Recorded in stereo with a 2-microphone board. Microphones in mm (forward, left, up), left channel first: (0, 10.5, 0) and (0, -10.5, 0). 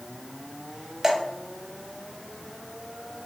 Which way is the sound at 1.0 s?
20° right (ahead or behind).